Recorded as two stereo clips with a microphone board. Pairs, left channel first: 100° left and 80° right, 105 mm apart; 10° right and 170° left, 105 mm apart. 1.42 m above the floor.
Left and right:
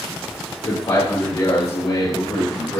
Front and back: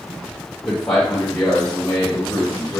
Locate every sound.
0.7 s a man speaking: 70° left, 2.5 m; by 2.8 s 75° left, 5.5 m